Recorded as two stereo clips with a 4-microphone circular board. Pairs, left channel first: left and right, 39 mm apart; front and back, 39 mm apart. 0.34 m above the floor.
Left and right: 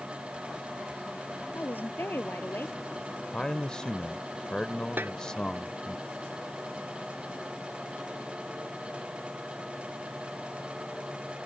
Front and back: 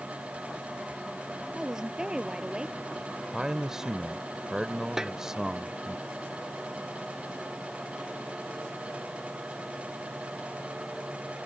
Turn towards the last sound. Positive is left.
turn(degrees=-105)